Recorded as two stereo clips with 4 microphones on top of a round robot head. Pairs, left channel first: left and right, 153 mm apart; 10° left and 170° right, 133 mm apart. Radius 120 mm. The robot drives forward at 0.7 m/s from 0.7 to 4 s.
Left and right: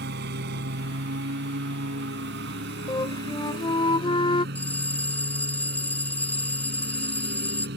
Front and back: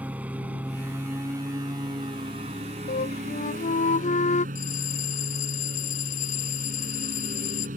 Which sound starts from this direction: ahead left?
A flute, at 2.9 s.